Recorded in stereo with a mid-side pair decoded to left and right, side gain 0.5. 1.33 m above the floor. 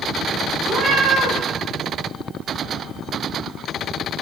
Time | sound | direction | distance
0.6 | a cat meowing | 60° right | 3 m